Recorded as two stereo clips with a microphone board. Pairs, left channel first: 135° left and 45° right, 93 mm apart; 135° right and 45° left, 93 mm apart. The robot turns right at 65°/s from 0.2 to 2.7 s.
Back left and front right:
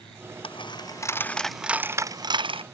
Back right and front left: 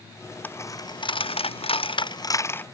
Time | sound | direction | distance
0.4 | a dropped coin | 155° left | ?